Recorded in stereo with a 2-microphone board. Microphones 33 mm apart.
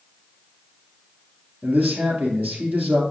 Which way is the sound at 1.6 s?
60° right (ahead or behind).